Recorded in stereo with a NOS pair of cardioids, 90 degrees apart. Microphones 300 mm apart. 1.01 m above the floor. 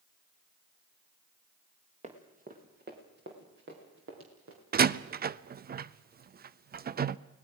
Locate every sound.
2.0 s running footsteps: 25° right, 4 m; by 4.6 s 50° right, 6.5 m
4.7 s a door slam: 35° right, 0.6 m